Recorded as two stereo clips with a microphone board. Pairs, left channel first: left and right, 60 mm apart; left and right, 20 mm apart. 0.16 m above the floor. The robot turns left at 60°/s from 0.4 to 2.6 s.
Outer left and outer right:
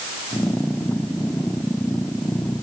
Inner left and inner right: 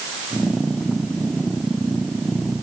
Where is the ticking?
I don't hear ticking.